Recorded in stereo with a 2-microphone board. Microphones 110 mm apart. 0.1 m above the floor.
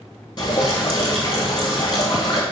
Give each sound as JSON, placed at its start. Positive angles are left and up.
{"t": 0.4, "sound": "dripping", "side_deg": 40, "distance_m": 1.0}